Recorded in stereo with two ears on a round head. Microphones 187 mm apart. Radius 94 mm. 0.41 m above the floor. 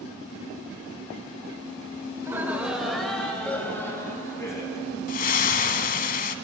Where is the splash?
40° left (ahead or behind), 1.0 m.